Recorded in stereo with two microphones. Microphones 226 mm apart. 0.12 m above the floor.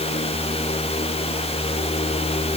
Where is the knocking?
No knocking in this recording.